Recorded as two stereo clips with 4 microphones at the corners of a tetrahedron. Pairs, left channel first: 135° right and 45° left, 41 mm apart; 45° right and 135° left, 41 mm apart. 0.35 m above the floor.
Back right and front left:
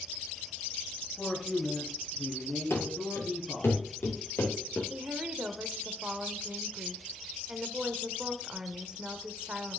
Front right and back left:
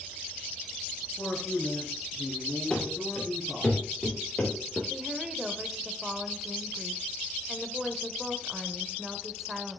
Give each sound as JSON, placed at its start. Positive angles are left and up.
{"t": 1.2, "sound": "a man speaking", "azimuth_deg": -65, "distance_m": 3.0}
{"t": 2.7, "sound": "running footsteps", "azimuth_deg": -115, "distance_m": 5.5}
{"t": 4.9, "sound": "a woman speaking", "azimuth_deg": 65, "distance_m": 0.9}